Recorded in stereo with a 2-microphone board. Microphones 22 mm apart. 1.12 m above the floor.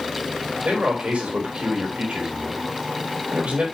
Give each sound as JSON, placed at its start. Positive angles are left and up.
{"t": 0.7, "sound": "a man speaking", "side_deg": -85, "distance_m": 4.0}